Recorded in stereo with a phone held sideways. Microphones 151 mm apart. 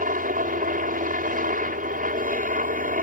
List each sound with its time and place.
0.0 s a helicopter: 65° right (ahead or behind)